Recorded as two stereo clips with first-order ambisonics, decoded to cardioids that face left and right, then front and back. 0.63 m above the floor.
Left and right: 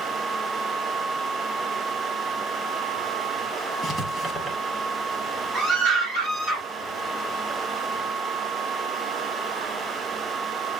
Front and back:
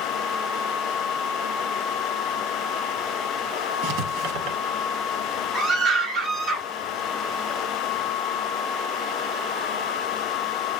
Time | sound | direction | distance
3.8 | writing | 165° right | 1.1 m
5.5 | a scream | 125° right | 1.6 m